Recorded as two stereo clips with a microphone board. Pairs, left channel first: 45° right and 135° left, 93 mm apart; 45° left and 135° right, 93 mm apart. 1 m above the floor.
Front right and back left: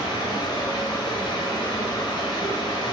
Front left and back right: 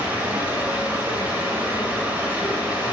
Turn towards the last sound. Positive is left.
turn(degrees=-60)